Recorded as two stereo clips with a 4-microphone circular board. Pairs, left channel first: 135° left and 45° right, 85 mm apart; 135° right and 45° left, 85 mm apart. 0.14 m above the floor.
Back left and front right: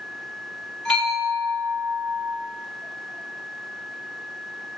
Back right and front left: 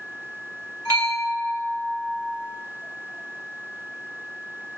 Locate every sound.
0.8 s a bell: 55° left, 1.5 m